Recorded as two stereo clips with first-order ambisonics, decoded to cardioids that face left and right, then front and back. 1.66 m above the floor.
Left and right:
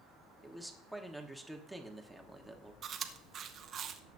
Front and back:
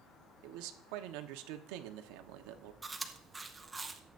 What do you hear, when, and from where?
0.4 s a man speaking: straight behind, 1.2 m
2.8 s chewing: 110° right, 0.8 m